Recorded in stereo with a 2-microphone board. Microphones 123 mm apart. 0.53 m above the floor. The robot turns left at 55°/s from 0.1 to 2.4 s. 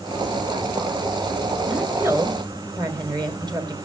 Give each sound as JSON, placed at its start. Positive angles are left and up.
{"t": 1.6, "sound": "a woman speaking", "azimuth_deg": 0, "distance_m": 2.0}